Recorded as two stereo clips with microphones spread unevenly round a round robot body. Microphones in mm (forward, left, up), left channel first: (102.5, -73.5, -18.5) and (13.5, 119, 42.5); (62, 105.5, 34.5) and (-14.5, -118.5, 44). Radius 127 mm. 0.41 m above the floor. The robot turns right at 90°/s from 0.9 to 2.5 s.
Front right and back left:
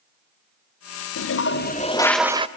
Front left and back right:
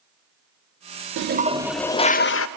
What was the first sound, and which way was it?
A toilet flushing, 70° right.